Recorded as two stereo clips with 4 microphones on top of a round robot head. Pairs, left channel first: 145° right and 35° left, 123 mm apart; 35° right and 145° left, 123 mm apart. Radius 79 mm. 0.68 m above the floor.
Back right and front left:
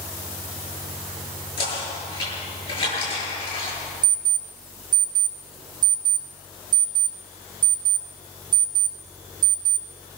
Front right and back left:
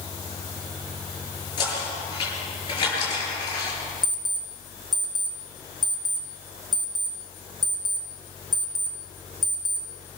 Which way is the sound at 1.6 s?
95° right.